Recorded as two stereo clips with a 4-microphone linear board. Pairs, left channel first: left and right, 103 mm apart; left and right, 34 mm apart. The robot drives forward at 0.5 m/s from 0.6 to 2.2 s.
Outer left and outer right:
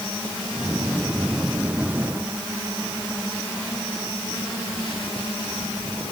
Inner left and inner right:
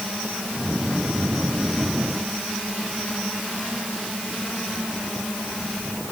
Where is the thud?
No thud in this recording.